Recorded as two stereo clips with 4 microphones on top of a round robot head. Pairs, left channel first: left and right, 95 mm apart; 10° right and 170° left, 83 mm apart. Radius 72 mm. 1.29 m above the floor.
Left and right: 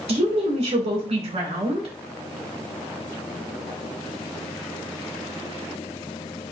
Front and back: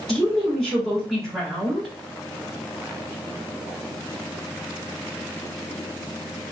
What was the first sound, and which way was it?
A woman speaking, 95° right.